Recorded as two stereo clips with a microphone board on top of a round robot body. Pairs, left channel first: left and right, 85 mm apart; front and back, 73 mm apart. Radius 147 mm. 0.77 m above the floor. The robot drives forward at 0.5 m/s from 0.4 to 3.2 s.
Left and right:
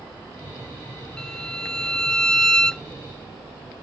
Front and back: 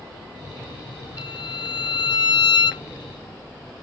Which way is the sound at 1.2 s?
5° left.